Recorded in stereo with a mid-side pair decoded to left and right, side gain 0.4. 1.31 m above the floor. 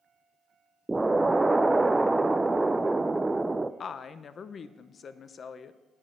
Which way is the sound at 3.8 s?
55° left.